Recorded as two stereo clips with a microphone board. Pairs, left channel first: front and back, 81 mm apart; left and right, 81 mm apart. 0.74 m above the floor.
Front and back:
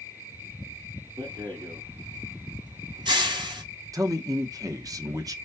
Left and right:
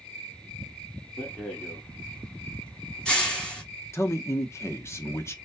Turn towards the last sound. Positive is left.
turn(degrees=140)